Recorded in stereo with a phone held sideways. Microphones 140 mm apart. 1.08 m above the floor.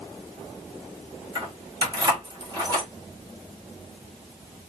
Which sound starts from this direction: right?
Keys jangling, at 1.4 s.